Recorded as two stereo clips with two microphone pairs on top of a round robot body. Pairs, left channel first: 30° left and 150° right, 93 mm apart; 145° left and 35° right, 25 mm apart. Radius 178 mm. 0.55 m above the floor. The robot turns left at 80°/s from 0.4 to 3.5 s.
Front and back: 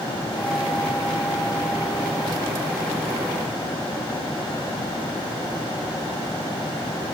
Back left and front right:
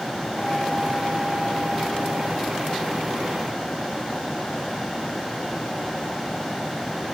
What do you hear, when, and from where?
Only background noise.